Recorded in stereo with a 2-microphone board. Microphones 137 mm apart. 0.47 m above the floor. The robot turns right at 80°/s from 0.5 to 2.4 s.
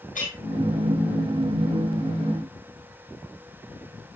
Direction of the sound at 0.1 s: 65° left (ahead or behind).